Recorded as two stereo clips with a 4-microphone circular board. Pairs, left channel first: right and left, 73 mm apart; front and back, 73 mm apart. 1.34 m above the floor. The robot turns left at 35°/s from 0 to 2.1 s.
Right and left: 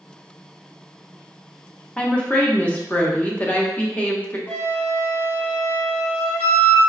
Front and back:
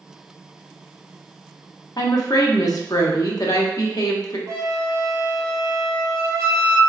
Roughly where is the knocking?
I don't hear knocking.